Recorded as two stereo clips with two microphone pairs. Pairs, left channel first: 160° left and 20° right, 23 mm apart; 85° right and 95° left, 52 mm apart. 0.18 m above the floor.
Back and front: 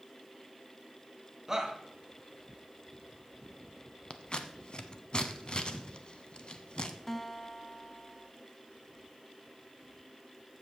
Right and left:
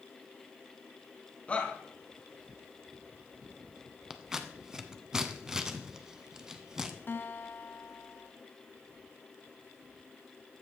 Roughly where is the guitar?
Behind right.